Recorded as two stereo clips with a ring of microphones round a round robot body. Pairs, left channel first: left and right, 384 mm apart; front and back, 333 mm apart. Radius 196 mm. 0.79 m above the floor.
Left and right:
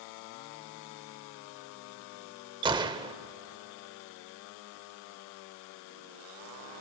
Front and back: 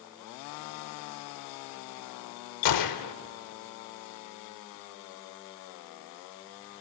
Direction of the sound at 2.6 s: 15° right.